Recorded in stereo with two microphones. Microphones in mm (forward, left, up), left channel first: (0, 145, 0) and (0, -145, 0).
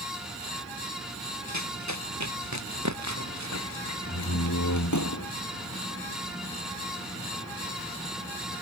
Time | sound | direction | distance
1.5 | running footsteps | 75° right (ahead or behind) | ?
4.1 | a door slam | 80° left | ?